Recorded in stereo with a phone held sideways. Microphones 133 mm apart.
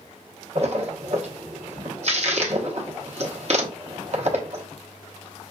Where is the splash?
55° right (ahead or behind), 1.1 m.